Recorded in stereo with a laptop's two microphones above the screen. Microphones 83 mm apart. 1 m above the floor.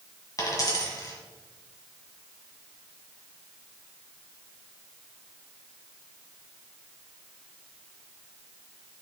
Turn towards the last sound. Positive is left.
turn(degrees=45)  # may be behind; listen again after turning